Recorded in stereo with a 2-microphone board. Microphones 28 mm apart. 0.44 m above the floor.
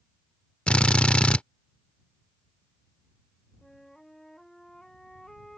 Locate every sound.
0.7 s a drill: 40° left (ahead or behind)
3.6 s a flute: 15° left (ahead or behind)